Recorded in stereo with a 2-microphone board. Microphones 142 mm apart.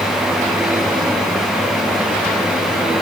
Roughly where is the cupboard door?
I don't hear a cupboard door.